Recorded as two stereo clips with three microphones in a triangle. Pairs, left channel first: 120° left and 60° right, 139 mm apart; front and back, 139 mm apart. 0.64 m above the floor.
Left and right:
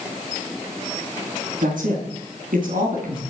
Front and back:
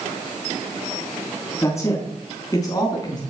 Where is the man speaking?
70° right, 5 m; by 3.2 s 60° right, 5.5 m.